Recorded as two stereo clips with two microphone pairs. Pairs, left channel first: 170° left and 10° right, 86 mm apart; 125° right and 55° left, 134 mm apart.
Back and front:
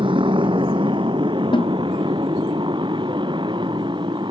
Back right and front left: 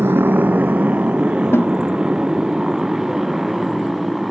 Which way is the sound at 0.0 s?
15° right.